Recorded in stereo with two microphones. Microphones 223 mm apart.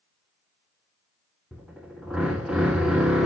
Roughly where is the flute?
I don't hear a flute.